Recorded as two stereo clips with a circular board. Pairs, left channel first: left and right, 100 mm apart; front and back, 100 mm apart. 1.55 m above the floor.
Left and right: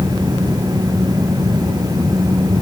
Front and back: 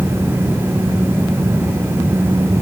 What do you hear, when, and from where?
Only background noise.